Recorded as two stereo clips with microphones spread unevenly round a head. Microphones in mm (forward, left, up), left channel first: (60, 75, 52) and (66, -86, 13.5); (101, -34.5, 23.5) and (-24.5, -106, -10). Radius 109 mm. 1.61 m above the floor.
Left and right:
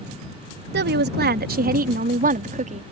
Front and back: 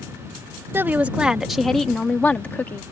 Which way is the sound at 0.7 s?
70° right.